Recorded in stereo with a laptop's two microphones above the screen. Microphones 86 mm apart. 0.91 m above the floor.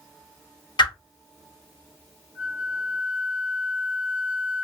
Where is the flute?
25° right (ahead or behind), 0.6 m.